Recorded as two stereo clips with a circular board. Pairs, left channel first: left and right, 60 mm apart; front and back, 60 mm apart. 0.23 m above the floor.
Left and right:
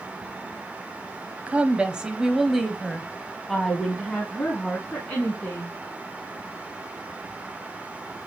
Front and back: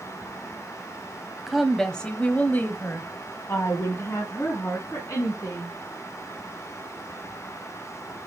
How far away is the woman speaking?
About 1.0 m.